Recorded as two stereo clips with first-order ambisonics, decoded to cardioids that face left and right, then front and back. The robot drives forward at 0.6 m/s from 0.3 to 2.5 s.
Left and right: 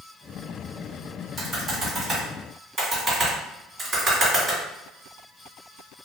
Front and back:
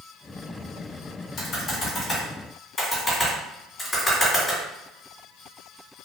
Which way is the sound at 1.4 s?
30° right.